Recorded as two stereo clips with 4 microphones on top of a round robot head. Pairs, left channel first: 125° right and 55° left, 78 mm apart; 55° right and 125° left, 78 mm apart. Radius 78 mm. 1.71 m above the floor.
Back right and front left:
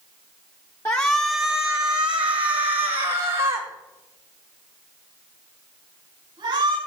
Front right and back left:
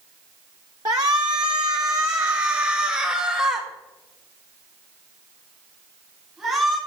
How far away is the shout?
About 0.7 m.